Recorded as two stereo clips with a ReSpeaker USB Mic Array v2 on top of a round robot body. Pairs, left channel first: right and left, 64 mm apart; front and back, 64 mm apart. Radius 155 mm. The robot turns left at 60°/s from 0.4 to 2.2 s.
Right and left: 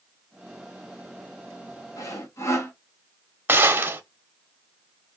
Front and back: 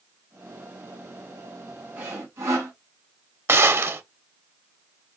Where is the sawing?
120° right, 1.2 m; by 2.7 s 135° right, 1.2 m.